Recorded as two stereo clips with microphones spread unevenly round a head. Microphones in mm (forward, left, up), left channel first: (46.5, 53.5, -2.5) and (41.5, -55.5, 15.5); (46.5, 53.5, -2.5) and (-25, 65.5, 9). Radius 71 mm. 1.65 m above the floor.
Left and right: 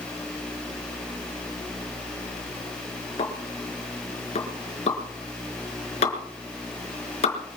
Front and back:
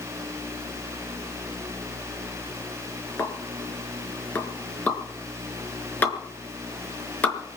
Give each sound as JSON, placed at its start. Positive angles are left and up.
{"t": 3.2, "sound": "a pop", "azimuth_deg": 60, "distance_m": 4.5}